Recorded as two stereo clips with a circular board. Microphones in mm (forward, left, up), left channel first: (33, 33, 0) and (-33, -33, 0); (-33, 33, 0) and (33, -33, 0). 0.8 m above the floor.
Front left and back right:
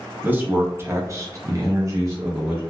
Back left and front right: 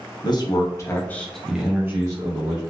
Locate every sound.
0.2 s a man speaking: 160° left, 0.8 m; by 2.6 s 75° right, 0.9 m